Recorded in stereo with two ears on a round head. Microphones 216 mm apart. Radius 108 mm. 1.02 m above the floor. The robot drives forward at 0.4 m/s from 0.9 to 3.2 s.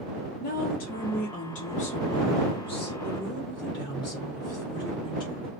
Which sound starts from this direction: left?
A woman speaking, at 0.4 s.